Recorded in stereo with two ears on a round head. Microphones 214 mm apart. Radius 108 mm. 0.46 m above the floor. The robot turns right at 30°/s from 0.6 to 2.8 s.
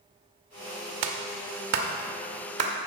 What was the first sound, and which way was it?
A clap, 55° right (ahead or behind).